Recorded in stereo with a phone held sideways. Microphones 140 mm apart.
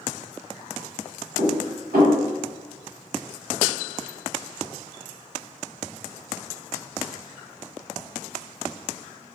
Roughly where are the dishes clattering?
Right.